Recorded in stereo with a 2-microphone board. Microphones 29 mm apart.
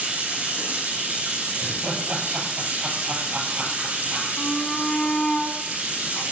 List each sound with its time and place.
0.0 s running water: 80° right, 3.5 m
1.6 s laughter: 75° right (ahead or behind), 5.5 m
4.4 s a shout: 35° left (ahead or behind), 1.9 m